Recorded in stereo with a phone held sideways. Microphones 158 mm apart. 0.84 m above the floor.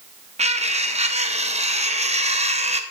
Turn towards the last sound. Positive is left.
turn(degrees=-45)  # may be behind; listen again after turning